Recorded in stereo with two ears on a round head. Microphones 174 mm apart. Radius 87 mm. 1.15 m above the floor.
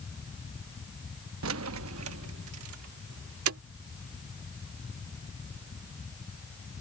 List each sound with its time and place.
1.4 s keys jangling: 80° right; by 3.6 s 85° right